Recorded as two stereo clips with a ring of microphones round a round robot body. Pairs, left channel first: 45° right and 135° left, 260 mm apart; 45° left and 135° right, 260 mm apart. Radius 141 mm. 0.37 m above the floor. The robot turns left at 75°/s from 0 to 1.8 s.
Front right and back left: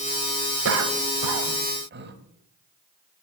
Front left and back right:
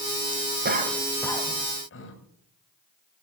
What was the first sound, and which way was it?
A cough, 170° left.